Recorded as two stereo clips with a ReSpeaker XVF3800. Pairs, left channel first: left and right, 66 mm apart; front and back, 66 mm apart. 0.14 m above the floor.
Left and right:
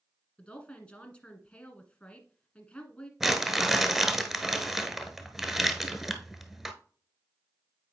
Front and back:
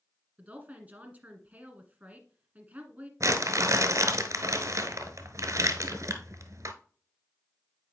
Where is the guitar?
No guitar in this recording.